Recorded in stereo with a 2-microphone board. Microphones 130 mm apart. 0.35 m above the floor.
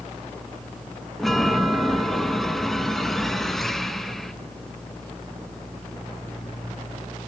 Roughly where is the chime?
Centre.